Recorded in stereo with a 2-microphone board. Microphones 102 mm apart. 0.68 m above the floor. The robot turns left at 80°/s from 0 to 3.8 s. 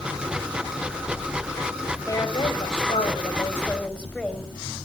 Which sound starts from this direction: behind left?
A woman speaking, at 2.1 s.